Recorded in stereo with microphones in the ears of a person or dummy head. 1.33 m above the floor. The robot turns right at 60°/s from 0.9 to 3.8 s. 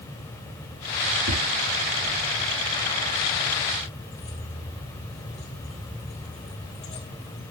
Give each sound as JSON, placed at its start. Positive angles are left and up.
{"t": 1.3, "sound": "tapping", "side_deg": -75, "distance_m": 5.5}
{"t": 4.1, "sound": "keys jangling", "side_deg": 35, "distance_m": 3.5}